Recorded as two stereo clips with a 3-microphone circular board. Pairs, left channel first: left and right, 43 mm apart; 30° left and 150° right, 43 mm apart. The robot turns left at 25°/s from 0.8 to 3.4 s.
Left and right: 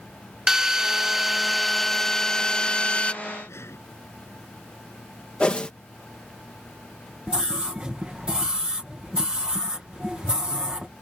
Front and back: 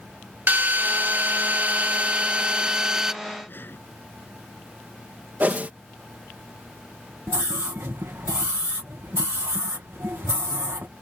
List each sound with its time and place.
0.5 s a drill: 160° right; by 3.1 s 145° left
3.5 s breathing: 70° left
5.4 s a whoosh: 160° left
7.3 s a scream: 155° right